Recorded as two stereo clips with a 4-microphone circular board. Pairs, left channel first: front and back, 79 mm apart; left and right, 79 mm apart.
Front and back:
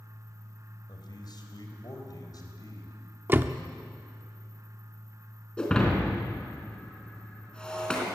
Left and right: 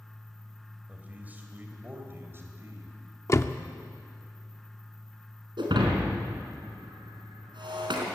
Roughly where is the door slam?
Behind left.